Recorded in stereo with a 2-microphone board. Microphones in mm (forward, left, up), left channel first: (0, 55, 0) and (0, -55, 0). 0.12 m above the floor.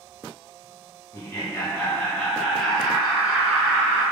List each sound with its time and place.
1.1 s laughter: 30° left (ahead or behind), 1.5 m; by 4.0 s 20° right (ahead or behind), 1.8 m